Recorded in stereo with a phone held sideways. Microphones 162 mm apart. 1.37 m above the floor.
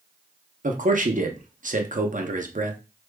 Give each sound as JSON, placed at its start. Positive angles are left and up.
{"t": 0.6, "sound": "a man speaking", "side_deg": -55, "distance_m": 0.7}